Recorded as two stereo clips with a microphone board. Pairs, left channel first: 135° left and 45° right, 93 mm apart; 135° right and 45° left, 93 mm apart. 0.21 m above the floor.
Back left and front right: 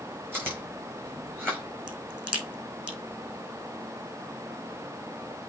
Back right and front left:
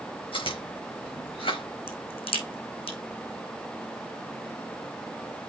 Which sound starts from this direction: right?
Chewing, at 0.3 s.